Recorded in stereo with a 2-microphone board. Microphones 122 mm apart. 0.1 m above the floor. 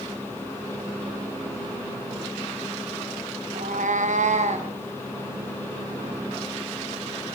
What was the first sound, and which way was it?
A cat meowing, 85° right.